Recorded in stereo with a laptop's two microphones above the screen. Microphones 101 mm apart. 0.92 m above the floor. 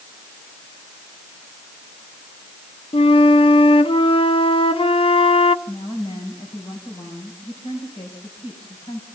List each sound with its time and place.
2.9 s a flute: 60° left (ahead or behind), 0.7 m
5.7 s a woman speaking: 65° left (ahead or behind), 5.5 m